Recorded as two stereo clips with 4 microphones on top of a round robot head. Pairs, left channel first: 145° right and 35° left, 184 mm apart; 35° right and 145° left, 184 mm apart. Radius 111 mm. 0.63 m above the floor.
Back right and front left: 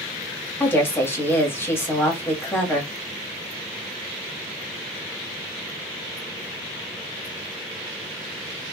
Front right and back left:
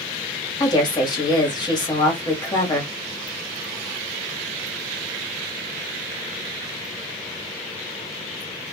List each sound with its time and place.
0.6 s a woman speaking: 80° right, 1.3 m